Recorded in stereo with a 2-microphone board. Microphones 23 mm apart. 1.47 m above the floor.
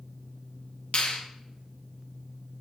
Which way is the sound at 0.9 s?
80° left.